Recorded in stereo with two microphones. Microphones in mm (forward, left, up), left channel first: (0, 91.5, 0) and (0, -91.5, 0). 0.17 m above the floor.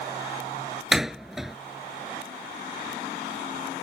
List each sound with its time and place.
0.9 s a door slam: centre (ahead or behind)